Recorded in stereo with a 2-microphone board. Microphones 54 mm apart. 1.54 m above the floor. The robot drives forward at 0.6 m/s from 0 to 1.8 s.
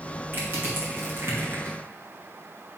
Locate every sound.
0.3 s crushing: 40° right (ahead or behind), 2.5 m; by 1.8 s 55° right (ahead or behind), 1.9 m